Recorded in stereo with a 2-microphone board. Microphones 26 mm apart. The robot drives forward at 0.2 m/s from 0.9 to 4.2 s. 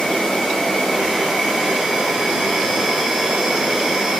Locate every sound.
0.0 s an insect: 30° left (ahead or behind), 1.0 m; by 4.2 s 20° left (ahead or behind), 1.5 m